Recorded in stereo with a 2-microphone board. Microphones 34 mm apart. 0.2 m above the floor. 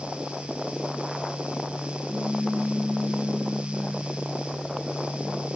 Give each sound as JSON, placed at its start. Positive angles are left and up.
{"t": 2.1, "sound": "a pop", "side_deg": -65, "distance_m": 3.0}